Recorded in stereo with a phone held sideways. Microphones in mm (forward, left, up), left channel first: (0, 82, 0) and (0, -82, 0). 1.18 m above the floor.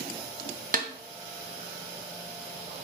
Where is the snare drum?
55° right (ahead or behind), 0.6 m.